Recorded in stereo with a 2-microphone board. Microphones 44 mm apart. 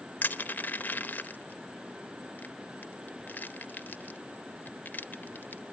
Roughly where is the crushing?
Left.